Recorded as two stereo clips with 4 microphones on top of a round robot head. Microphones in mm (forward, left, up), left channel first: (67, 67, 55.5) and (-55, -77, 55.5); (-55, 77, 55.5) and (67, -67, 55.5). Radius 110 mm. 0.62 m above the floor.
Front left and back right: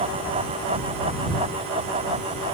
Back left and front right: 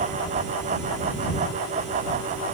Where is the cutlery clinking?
I don't hear cutlery clinking.